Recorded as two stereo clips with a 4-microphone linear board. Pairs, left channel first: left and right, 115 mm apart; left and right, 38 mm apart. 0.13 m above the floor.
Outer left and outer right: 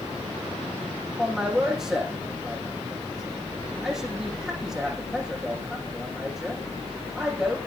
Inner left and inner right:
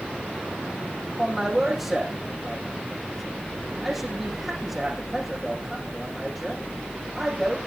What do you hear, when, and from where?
1.2 s a man speaking: 5° right (ahead or behind), 7 m